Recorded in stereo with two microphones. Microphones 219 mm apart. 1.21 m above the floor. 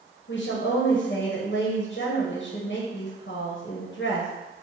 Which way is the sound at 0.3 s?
55° left (ahead or behind).